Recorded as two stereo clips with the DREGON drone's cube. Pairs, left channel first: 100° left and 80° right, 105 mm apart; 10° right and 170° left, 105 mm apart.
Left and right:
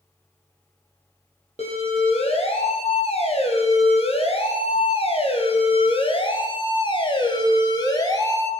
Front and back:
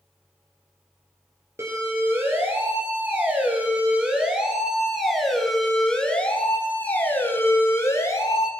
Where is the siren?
105° left, 7 m; by 8.5 s 45° left, 5 m.